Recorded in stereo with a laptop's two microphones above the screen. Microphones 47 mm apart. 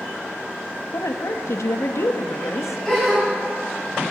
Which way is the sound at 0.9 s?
80° left.